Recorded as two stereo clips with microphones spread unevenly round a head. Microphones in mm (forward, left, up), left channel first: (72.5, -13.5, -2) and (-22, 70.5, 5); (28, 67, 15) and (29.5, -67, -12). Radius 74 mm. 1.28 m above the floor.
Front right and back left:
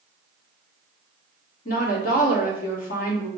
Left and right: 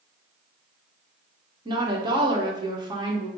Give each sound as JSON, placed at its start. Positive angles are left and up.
{"t": 1.6, "sound": "a woman speaking", "azimuth_deg": -35, "distance_m": 1.4}